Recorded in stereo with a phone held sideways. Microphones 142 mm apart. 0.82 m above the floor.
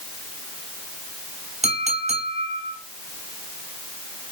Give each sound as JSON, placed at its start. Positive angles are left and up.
{"t": 1.6, "sound": "a clink", "side_deg": -50, "distance_m": 2.5}